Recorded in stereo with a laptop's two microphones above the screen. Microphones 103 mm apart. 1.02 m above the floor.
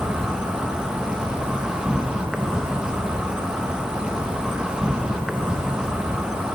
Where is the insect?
5° right (ahead or behind), 0.7 m.